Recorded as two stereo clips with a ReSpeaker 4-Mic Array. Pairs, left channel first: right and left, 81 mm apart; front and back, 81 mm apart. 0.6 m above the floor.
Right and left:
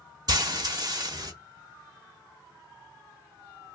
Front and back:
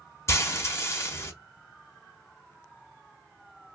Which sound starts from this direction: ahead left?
Frying, at 0.3 s.